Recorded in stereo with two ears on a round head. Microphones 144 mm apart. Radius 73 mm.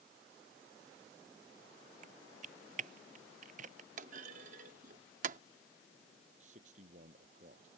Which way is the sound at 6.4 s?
45° right (ahead or behind).